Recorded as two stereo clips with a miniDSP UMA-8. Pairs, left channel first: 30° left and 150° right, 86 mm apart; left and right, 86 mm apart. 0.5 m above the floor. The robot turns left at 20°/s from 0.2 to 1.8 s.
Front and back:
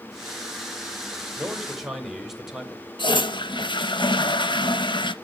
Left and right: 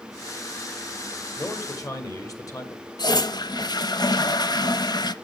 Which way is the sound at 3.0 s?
55° left.